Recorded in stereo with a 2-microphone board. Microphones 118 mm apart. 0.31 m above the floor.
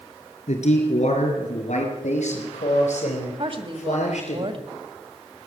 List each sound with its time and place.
0.5 s a man speaking: 70° left (ahead or behind), 4 m; by 4.4 s 80° left, 5.5 m
3.4 s a woman speaking: 50° right (ahead or behind), 1.9 m